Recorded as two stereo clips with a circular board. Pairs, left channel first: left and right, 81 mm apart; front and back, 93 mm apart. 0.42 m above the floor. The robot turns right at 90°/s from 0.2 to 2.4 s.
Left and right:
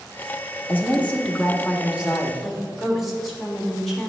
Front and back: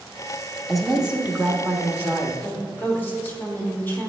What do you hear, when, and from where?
0.7 s a woman speaking: 90° left, 0.7 m; by 2.3 s 125° right, 0.7 m
2.4 s a woman speaking: straight ahead, 1.2 m